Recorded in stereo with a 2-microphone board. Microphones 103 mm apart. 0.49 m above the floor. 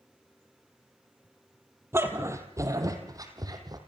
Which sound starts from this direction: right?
A dog barking, at 1.9 s.